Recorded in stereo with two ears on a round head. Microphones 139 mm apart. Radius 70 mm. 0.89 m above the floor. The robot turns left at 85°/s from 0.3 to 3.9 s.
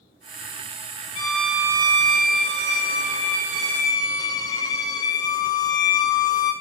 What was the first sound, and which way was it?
A violin, 30° left.